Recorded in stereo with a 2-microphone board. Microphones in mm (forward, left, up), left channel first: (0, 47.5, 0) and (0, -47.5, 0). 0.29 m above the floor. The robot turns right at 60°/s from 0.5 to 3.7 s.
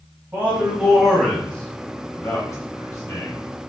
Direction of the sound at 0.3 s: 20° right (ahead or behind).